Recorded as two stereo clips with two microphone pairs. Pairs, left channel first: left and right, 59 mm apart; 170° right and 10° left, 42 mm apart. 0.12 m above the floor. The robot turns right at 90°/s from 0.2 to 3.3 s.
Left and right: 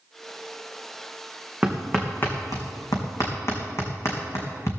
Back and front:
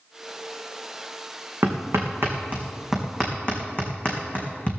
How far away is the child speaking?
No child speaking in this recording.